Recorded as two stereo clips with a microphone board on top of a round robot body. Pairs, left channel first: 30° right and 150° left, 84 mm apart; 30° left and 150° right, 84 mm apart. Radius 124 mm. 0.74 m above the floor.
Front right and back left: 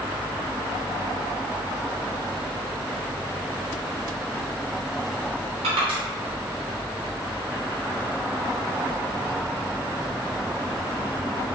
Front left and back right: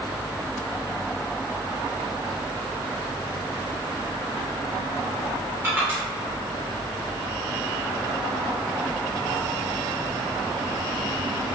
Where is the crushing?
145° left, 0.5 m.